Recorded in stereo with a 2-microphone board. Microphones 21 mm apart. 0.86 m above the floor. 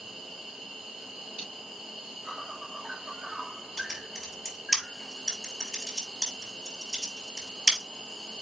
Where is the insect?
40° right (ahead or behind), 2 m.